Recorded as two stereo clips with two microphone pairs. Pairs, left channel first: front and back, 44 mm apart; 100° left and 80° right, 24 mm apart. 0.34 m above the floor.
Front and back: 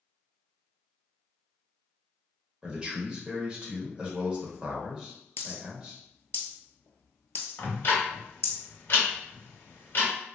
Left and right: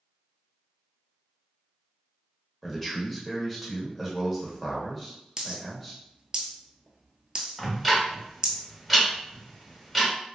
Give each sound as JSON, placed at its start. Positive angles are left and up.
{"t": 2.6, "sound": "a man speaking", "azimuth_deg": -175, "distance_m": 1.0}
{"t": 5.4, "sound": "a dropped coin", "azimuth_deg": -25, "distance_m": 0.7}
{"t": 7.6, "sound": "ticking", "azimuth_deg": 10, "distance_m": 1.2}